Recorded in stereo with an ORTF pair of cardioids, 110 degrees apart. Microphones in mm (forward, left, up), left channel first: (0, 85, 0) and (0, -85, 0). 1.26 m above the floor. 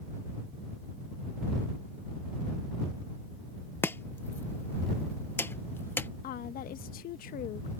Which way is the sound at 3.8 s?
15° left.